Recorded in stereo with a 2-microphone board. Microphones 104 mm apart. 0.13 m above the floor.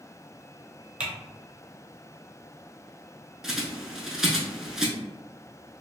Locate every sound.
1.0 s typing on a keyboard: 10° right (ahead or behind), 0.8 m
3.4 s a bird: 5° right (ahead or behind), 0.6 m